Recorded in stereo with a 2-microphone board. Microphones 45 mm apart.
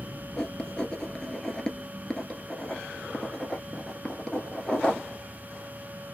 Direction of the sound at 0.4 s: 15° left (ahead or behind).